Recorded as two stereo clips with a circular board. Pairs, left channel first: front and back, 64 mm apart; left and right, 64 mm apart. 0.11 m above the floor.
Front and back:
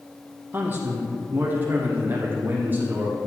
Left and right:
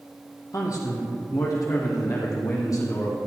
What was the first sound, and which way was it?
A man speaking, 125° left.